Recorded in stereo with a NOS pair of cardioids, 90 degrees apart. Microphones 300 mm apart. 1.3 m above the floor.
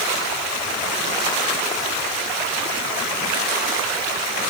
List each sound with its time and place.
Only background noise.